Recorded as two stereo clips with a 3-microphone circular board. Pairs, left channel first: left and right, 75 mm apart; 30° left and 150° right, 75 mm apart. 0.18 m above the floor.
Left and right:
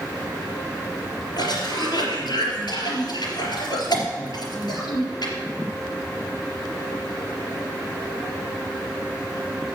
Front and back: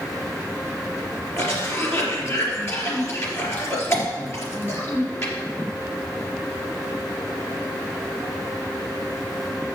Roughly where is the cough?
Left.